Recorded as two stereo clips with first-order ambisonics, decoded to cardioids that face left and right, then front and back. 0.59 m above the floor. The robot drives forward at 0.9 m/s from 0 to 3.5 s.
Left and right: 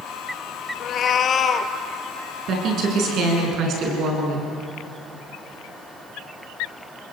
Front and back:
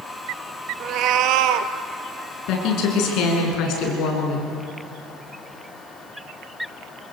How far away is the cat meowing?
About 0.9 m.